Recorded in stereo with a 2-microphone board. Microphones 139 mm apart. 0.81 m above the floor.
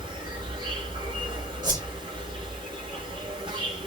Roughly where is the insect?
Right.